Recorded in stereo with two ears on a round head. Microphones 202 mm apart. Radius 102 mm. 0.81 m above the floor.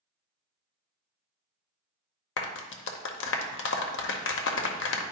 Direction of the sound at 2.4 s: 50° left (ahead or behind).